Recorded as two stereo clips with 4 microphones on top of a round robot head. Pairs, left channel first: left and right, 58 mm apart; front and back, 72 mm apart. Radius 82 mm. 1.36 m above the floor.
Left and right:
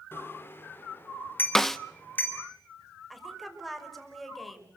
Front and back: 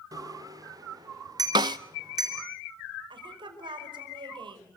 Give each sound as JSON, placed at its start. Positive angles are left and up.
{"t": 0.1, "sound": "a bicycle bell", "azimuth_deg": 140, "distance_m": 3.0}
{"t": 1.6, "sound": "a snare drum", "azimuth_deg": 175, "distance_m": 0.5}
{"t": 3.1, "sound": "a woman speaking", "azimuth_deg": 180, "distance_m": 5.5}